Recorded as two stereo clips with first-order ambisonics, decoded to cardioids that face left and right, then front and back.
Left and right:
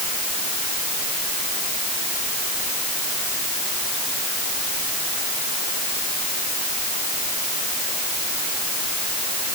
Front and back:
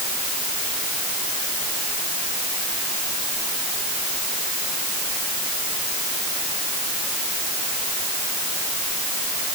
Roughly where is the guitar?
No guitar in this recording.